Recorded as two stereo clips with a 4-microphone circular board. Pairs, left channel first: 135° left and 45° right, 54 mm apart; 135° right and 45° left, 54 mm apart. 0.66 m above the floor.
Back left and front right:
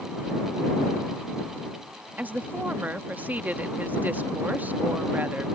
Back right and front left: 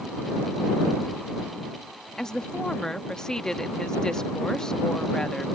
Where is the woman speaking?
65° right.